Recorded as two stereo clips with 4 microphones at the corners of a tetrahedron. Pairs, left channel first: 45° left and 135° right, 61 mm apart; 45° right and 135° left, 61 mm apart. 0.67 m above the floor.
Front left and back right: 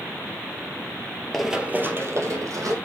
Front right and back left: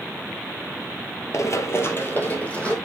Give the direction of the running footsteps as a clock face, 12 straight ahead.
1 o'clock.